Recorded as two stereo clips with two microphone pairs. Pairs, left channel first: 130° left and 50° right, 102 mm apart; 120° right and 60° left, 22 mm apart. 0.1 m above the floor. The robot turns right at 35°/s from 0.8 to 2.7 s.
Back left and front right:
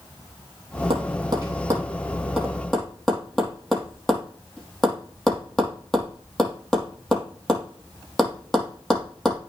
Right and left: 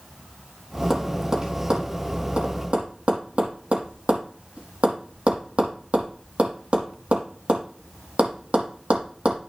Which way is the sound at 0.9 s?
15° right.